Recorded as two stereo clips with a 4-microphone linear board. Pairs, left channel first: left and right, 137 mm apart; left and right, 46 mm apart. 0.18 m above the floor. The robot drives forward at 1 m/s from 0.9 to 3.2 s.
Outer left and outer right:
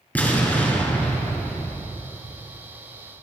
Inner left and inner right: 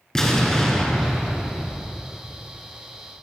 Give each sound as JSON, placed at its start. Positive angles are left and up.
{"t": 0.1, "sound": "an explosion", "side_deg": 15, "distance_m": 2.0}